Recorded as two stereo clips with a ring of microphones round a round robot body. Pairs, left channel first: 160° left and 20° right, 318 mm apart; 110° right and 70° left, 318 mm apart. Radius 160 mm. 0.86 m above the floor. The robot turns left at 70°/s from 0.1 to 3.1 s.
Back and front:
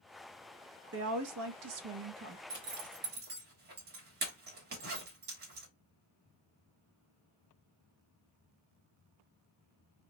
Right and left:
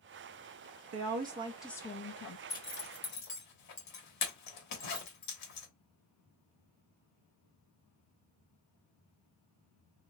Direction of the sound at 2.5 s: 45° right.